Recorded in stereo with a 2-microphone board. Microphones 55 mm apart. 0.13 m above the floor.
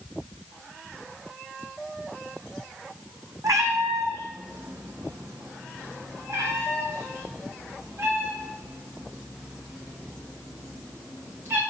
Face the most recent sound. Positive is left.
turn(degrees=-45)  # may be behind; listen again after turning